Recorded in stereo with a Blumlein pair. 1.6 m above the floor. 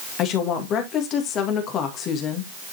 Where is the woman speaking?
35° left, 2 m.